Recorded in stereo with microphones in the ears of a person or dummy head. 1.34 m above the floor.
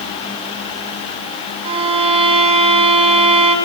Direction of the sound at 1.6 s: 30° right (ahead or behind).